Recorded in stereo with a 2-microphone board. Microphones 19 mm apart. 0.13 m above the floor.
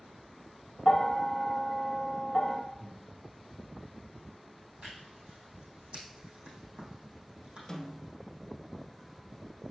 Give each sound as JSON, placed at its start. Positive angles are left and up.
{"t": 0.8, "sound": "a bell", "side_deg": 35, "distance_m": 0.7}
{"t": 2.8, "sound": "breathing", "side_deg": -60, "distance_m": 1.7}
{"t": 4.8, "sound": "tearing paper", "side_deg": -75, "distance_m": 3.5}
{"t": 7.7, "sound": "a snare drum", "side_deg": 30, "distance_m": 1.3}